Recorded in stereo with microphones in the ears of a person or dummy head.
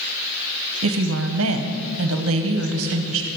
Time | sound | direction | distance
0.8 | a woman speaking | 75° right (ahead or behind) | 1.1 m